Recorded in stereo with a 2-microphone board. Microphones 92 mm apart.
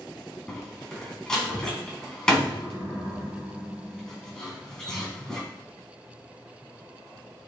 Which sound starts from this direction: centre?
A door slam, at 0.5 s.